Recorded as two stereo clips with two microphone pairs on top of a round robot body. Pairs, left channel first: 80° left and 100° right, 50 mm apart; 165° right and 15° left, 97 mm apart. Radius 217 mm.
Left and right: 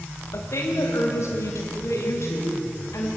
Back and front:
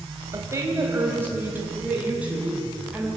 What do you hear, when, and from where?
0.3 s a woman speaking: 70° left, 3 m; by 3.1 s 100° left, 4.5 m